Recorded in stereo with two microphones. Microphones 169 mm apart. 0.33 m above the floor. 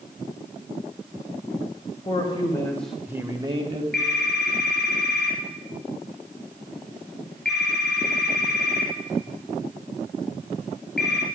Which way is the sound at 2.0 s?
35° left (ahead or behind).